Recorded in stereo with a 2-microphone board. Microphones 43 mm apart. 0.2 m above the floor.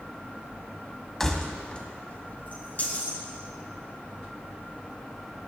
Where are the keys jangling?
5° left (ahead or behind), 1.0 m; by 3.2 s 40° left (ahead or behind), 2.5 m.